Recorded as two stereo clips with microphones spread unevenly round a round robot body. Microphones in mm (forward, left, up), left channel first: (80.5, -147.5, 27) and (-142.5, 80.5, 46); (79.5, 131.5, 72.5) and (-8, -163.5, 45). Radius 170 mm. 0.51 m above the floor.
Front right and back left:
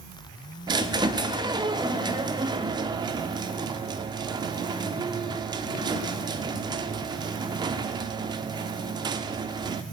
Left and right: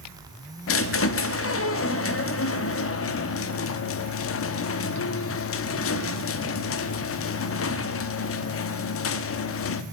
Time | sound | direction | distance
0.7 | a squeak | 60° left | 0.8 m